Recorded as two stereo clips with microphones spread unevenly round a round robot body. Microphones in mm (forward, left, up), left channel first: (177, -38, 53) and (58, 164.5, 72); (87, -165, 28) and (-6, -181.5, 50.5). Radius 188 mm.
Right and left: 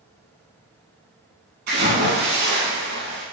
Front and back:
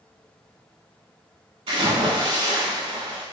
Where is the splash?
160° left, 0.7 m.